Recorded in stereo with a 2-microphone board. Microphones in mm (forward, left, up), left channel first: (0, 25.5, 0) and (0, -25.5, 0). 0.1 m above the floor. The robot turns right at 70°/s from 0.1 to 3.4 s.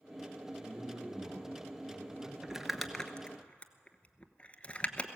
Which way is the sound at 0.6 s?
160° right.